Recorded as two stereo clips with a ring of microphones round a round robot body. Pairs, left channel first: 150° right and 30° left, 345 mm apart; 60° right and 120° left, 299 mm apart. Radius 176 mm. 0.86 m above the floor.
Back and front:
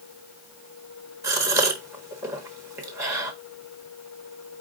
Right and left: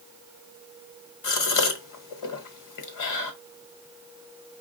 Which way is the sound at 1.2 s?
50° right.